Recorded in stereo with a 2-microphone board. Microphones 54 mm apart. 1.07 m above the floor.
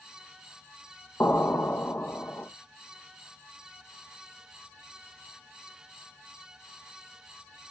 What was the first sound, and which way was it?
An explosion, 40° left (ahead or behind).